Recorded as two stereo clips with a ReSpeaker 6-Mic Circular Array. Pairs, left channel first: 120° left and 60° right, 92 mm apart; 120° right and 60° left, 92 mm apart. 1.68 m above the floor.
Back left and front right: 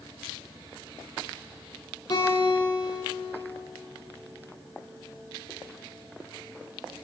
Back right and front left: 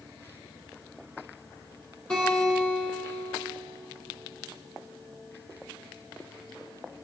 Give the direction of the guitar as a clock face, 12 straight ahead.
7 o'clock.